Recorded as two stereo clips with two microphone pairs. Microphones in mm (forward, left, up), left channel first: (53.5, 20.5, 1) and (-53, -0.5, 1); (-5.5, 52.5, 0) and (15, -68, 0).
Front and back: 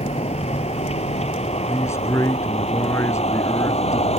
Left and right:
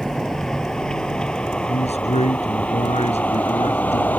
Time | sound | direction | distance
0.0 | a vehicle | 10° left | ?
1.7 | a man speaking | 75° left | ?